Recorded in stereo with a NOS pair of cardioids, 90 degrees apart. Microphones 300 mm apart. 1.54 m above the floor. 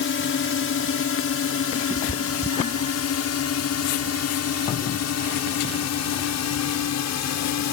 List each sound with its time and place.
0.0 s a drone: 45° left; by 7.7 s 65° left
1.9 s a cat meowing: 20° right